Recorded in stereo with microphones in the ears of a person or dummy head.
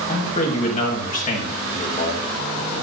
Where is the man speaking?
40° left (ahead or behind), 1.6 m.